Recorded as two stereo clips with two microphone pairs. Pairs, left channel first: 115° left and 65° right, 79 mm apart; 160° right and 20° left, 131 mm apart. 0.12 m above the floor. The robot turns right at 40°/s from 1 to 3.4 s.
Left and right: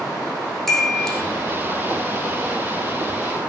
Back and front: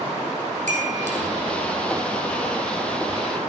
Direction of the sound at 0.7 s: 30° left.